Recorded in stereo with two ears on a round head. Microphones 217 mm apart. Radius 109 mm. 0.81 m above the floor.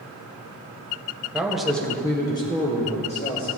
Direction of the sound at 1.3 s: 5° right (ahead or behind).